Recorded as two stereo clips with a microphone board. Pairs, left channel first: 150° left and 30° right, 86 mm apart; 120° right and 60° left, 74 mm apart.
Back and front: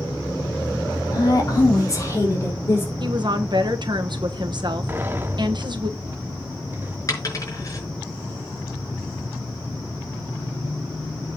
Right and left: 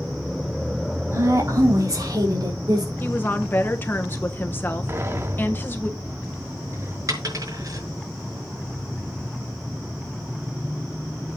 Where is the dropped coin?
100° left, 5.5 m.